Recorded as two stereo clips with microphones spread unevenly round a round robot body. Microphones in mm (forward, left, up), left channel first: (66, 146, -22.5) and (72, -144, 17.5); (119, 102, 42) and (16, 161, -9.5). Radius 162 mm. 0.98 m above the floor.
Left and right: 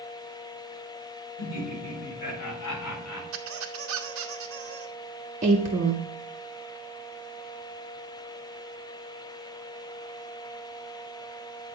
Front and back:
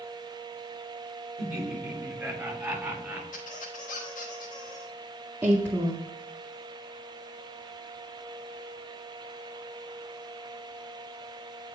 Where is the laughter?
65° left, 3.5 m; by 3.2 s 75° left, 4 m.